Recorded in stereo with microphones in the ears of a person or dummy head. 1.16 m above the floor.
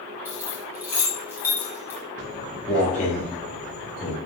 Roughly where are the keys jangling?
Centre.